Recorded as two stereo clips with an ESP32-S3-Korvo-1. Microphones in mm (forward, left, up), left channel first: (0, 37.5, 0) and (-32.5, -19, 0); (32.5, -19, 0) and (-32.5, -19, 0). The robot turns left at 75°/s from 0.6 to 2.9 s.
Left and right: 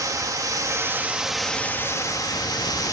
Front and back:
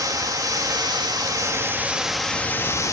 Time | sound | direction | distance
0.0 | running water | 150° right | 2 m